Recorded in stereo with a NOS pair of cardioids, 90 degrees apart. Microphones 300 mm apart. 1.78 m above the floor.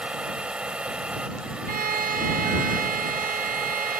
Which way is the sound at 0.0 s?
5° right.